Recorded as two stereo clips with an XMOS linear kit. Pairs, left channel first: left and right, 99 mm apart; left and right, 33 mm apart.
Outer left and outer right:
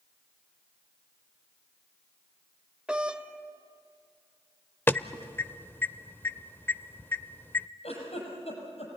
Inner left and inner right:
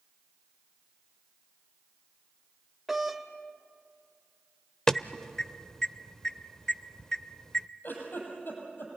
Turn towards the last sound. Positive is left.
turn(degrees=85)